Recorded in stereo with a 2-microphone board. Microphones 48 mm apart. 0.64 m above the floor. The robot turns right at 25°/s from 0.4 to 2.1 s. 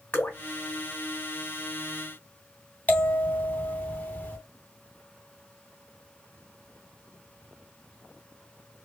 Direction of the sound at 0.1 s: 40° left (ahead or behind).